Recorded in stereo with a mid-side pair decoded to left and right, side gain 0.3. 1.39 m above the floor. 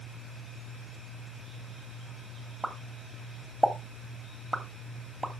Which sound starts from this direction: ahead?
A pop, at 2.6 s.